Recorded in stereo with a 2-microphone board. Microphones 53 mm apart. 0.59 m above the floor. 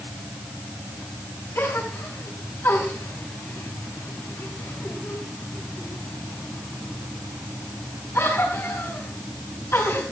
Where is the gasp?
60° left (ahead or behind), 6 m.